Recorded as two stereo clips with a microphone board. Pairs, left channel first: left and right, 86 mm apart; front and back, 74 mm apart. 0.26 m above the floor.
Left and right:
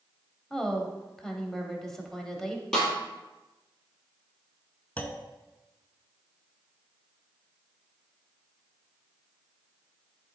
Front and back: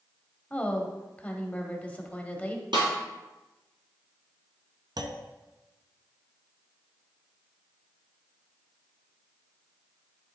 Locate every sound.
0.5 s a woman speaking: 15° left, 0.9 m
2.7 s a snare drum: 170° left, 2 m
5.0 s a clunk: 160° left, 0.6 m